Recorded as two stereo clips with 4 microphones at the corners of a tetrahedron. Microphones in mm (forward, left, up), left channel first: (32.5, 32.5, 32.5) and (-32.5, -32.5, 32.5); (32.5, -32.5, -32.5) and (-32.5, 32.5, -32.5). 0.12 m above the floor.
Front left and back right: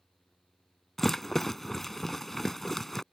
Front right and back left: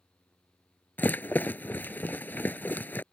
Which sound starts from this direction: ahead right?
A rattle, at 1.0 s.